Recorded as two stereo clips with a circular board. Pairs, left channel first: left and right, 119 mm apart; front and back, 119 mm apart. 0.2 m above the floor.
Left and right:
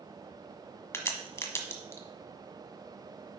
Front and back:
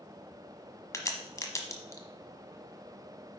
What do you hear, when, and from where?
0.9 s a crack: 40° left, 1.3 m